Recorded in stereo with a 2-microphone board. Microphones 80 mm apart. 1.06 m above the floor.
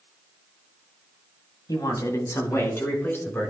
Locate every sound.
1.7 s a man speaking: 55° left (ahead or behind), 2 m; by 3.5 s 25° left (ahead or behind), 4.5 m